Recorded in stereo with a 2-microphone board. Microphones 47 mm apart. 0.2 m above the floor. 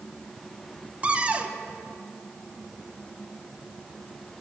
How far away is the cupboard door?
About 0.6 m.